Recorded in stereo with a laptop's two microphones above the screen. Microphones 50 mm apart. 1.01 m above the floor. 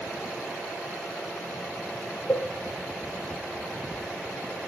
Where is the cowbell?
40° left (ahead or behind), 0.8 m.